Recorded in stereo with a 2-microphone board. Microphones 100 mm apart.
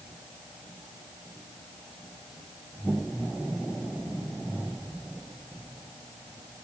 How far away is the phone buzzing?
No phone buzzing in this recording.